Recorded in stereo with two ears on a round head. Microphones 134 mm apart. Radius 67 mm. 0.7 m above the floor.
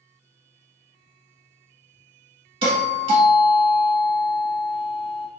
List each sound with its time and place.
2.6 s a doorbell: 35° right (ahead or behind), 1.5 m